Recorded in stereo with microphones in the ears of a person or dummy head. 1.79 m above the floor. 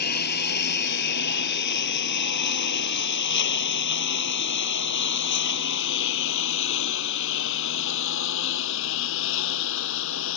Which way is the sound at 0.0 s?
55° left (ahead or behind).